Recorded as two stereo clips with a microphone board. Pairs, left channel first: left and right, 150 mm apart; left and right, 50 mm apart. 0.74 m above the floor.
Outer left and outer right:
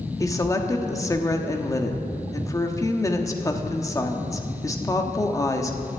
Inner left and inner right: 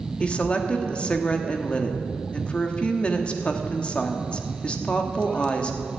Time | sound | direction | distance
0.2 | a woman speaking | 20° left (ahead or behind) | 1.3 m